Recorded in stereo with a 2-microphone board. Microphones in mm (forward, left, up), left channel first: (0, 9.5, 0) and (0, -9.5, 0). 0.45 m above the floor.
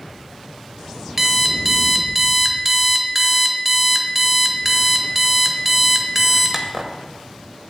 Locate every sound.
1.2 s an alarm clock: 15° right (ahead or behind), 1.0 m